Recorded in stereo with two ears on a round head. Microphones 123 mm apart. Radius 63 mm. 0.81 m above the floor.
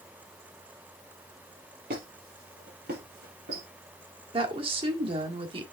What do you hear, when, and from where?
1.9 s a squeak: 75° right (ahead or behind), 4.5 m
4.3 s a woman speaking: 40° right (ahead or behind), 1.7 m